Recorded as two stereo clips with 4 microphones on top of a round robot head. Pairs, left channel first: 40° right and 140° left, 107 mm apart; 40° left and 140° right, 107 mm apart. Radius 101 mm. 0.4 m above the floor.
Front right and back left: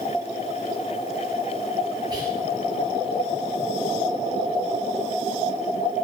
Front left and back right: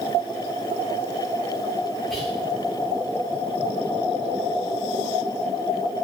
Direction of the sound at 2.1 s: 125° left.